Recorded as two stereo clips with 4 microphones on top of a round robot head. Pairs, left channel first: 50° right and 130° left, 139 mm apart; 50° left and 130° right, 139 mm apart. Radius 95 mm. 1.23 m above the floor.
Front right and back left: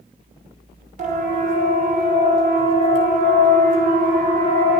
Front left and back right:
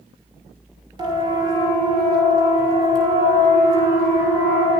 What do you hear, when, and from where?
1.0 s a siren: 170° left, 6 m; by 4.8 s 165° left, 9 m